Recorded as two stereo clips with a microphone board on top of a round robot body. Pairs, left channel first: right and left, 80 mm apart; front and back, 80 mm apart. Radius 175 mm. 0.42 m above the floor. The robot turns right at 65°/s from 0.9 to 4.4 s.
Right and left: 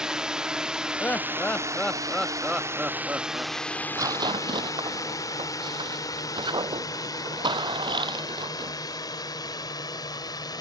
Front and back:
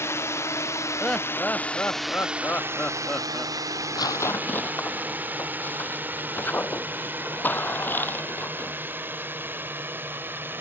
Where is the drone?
15° left; by 10.6 s 120° right.